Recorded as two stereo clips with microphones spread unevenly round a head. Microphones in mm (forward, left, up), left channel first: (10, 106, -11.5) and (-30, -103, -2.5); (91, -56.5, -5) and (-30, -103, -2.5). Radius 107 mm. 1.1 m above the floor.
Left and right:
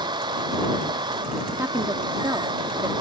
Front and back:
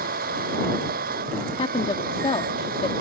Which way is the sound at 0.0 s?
170° right.